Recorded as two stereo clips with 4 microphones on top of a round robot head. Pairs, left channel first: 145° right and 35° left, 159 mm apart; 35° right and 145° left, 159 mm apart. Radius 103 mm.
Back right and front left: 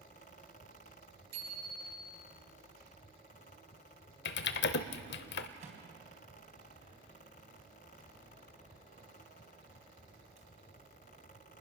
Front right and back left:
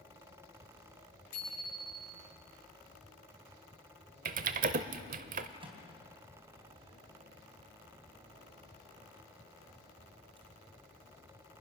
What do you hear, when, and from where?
1.3 s a bicycle bell: 5° left, 8.5 m
4.2 s typing on a keyboard: 170° right, 0.7 m
5.6 s a microwave: 85° left, 3.5 m